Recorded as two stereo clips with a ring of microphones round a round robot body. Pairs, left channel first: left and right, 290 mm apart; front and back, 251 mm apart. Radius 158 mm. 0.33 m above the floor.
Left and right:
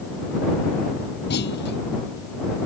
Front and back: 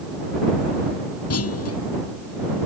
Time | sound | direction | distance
1.3 | a clunk | 30° left | ?